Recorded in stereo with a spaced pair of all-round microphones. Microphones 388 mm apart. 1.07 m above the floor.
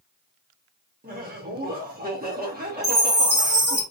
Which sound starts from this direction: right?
Laughter, at 1.0 s.